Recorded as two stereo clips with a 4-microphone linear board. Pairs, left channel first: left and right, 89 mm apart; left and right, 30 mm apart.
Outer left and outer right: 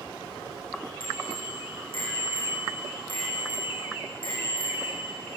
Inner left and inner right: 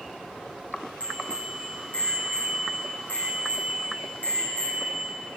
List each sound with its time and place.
1.0 s a bicycle bell: 70° left (ahead or behind), 7 m